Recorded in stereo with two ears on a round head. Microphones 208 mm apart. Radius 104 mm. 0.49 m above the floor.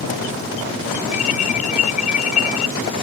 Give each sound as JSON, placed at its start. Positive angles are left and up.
{"t": 1.1, "sound": "an alarm", "side_deg": 35}